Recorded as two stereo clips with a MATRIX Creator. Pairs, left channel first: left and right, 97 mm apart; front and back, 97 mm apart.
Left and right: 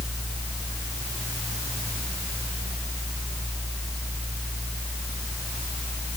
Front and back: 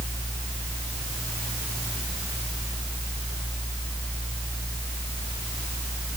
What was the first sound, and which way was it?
Only background noise.